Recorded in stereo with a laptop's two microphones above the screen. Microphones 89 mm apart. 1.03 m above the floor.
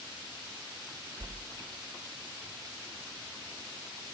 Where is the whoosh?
50° right (ahead or behind), 0.6 m.